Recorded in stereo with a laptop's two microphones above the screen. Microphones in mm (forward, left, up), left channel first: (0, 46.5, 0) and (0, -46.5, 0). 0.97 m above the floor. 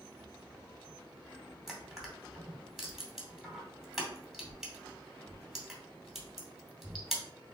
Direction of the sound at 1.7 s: Centre (ahead or behind).